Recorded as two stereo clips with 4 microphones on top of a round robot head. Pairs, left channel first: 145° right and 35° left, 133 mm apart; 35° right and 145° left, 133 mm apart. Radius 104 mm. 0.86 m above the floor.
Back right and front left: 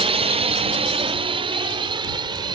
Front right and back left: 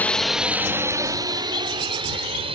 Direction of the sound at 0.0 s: 35° left.